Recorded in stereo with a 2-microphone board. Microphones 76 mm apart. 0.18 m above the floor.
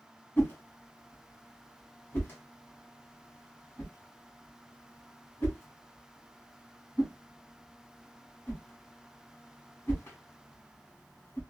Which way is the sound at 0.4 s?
30° left (ahead or behind).